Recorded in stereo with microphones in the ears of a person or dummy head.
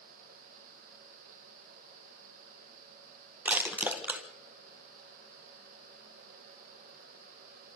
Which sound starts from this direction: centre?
Crushing, at 3.5 s.